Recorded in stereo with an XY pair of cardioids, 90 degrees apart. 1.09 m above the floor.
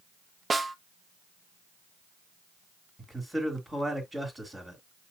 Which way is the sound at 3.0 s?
10° right.